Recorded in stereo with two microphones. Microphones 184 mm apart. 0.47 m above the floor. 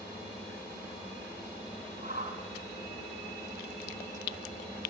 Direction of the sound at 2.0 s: 45° right (ahead or behind).